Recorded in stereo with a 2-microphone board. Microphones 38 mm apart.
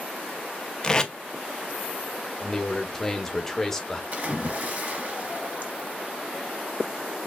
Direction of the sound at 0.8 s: 20° left (ahead or behind).